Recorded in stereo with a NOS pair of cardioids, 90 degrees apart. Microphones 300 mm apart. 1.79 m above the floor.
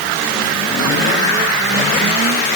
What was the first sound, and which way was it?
Only background noise.